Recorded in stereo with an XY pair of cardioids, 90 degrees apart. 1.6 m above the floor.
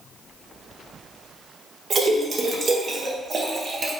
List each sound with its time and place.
1.9 s a splash: 50° right, 0.9 m